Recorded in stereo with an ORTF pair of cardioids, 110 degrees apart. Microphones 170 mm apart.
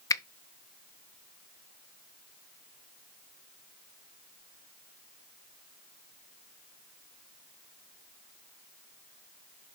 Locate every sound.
0.1 s a finger snap: 20° left, 0.6 m